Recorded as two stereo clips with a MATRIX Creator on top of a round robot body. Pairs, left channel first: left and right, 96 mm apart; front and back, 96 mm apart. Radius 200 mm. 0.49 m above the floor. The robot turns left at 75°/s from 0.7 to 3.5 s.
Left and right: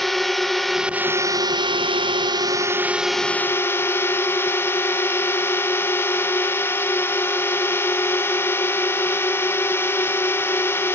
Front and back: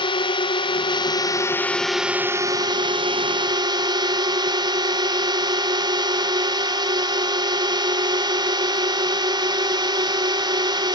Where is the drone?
Straight ahead; by 10.9 s 150° left.